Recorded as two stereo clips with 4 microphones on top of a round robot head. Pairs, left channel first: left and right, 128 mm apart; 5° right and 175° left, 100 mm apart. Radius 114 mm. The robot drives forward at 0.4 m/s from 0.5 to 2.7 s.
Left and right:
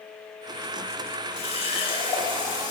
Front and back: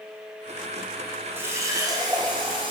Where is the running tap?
110° left, 0.7 m; by 2.7 s 145° left, 1.0 m.